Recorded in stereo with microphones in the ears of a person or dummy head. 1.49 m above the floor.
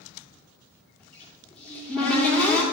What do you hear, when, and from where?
1.0 s a cupboard door: 10° left (ahead or behind), 2.5 m